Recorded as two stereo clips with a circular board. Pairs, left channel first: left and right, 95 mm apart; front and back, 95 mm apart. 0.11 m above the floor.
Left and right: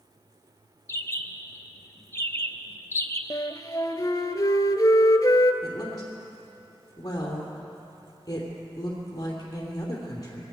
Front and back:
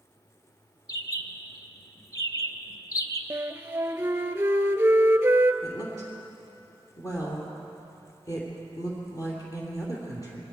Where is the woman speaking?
45° left, 3 m.